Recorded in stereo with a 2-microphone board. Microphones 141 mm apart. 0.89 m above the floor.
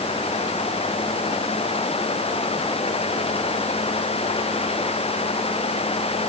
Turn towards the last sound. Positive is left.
No sound to turn to.